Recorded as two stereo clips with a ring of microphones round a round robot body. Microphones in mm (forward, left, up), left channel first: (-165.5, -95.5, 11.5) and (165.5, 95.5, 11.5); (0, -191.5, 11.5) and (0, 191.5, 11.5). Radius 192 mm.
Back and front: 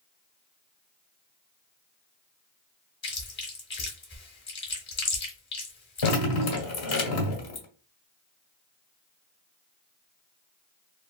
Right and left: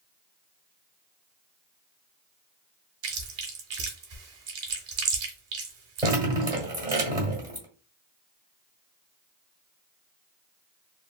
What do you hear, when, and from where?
3.0 s chewing: 145° left, 1.4 m
6.0 s dripping: 170° left, 1.6 m